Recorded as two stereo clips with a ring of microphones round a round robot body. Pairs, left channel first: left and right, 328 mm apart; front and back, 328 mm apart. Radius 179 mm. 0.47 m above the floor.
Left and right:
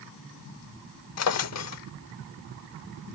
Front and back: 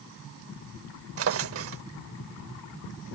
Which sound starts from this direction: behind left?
A drawer, at 1.2 s.